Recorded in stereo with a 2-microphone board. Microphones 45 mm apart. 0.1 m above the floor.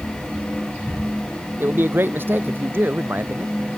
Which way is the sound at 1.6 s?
55° right (ahead or behind).